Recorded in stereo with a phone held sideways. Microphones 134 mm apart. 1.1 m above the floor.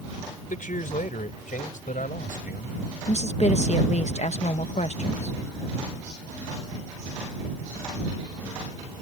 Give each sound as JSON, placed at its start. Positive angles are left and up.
{"t": 0.5, "sound": "a man speaking", "side_deg": 80}
{"t": 3.1, "sound": "a woman speaking", "side_deg": 55}